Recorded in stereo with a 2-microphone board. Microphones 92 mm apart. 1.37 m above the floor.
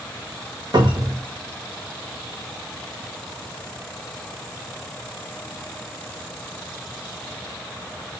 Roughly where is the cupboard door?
Right.